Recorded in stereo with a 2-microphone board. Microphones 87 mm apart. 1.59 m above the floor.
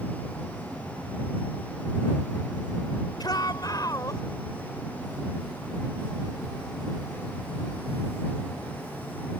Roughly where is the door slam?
No door slam in this recording.